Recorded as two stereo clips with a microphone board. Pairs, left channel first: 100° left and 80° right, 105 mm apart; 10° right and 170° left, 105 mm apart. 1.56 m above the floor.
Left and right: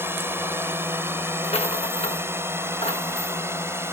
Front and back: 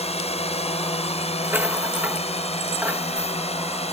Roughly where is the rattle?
Left.